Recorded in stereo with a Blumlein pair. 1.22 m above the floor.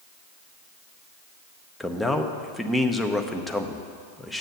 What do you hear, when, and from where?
1.8 s a man speaking: 5° left, 0.8 m